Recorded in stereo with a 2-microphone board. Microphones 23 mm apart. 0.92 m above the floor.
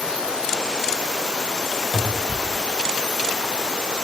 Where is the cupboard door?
10° right (ahead or behind), 1.1 m.